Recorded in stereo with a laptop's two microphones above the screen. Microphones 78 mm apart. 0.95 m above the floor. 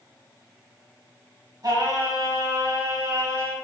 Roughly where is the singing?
Right.